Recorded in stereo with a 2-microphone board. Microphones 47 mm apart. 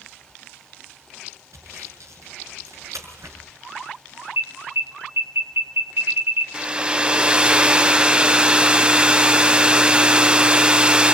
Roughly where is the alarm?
Right.